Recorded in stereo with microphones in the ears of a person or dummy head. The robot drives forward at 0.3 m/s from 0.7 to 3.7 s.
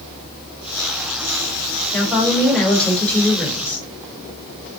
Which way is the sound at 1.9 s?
5° left (ahead or behind).